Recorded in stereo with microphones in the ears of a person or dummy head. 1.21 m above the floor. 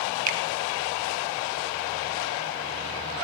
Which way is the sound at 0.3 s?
45° right (ahead or behind).